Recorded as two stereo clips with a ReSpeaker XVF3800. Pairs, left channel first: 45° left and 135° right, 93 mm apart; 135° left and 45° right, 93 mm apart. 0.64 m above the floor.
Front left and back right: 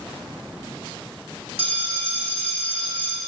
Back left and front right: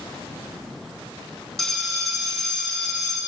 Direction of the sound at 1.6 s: 140° right.